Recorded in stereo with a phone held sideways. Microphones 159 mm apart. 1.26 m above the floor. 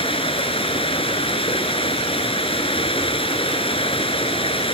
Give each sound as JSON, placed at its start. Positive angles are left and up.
{"t": 0.0, "sound": "running water", "side_deg": 35}